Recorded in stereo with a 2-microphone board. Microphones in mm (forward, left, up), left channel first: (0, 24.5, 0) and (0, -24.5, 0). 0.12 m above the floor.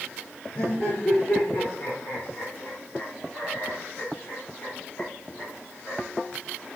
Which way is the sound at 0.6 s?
60° left (ahead or behind).